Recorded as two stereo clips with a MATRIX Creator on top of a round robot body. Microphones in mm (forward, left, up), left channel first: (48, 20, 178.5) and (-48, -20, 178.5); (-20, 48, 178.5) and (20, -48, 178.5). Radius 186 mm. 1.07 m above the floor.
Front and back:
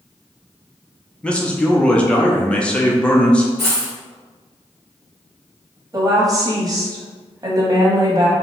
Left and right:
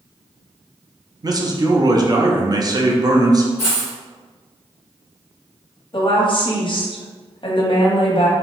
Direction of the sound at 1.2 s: 50° right.